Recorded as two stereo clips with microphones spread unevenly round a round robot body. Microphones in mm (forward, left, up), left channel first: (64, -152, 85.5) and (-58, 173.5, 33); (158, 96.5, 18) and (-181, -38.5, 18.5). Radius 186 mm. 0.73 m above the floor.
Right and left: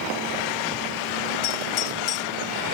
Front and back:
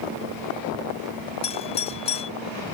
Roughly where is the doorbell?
Ahead right.